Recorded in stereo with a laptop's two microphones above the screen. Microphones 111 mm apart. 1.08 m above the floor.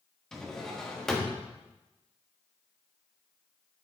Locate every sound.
0.3 s a drawer: 5° left (ahead or behind), 1.2 m